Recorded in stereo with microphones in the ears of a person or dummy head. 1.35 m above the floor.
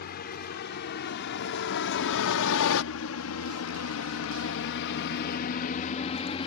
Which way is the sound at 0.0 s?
55° left (ahead or behind).